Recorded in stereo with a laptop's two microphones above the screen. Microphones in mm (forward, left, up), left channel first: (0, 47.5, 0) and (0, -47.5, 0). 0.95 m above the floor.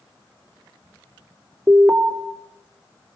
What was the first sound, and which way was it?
An alarm, 25° right (ahead or behind).